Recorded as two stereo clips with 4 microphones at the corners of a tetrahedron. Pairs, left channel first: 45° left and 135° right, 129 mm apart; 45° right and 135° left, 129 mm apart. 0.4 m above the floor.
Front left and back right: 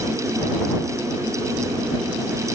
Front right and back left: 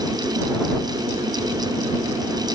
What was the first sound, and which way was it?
Only background noise.